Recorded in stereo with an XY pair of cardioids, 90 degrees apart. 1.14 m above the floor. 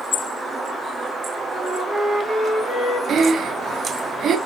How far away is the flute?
About 4 m.